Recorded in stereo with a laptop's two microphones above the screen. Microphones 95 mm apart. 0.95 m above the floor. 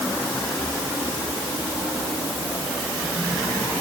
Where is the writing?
No writing in this recording.